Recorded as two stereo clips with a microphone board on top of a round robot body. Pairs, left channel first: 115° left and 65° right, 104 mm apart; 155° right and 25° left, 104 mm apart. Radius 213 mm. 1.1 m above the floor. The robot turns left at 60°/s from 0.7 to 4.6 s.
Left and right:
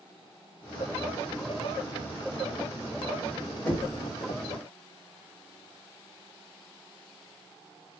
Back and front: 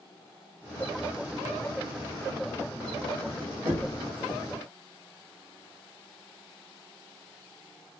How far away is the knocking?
About 1.5 m.